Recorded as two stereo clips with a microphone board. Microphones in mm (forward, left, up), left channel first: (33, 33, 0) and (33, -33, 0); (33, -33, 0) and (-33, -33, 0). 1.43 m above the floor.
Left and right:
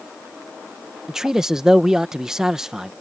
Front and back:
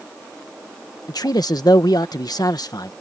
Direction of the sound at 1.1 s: 10° right.